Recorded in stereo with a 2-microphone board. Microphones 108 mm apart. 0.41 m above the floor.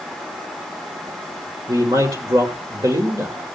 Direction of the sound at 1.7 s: 30° right (ahead or behind).